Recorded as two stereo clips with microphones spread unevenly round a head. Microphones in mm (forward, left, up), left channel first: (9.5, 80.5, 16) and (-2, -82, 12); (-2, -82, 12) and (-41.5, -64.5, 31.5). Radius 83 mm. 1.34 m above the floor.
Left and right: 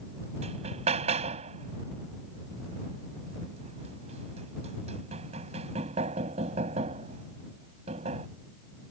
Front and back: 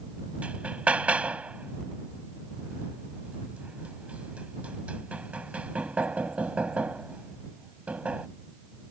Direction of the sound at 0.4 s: 150° right.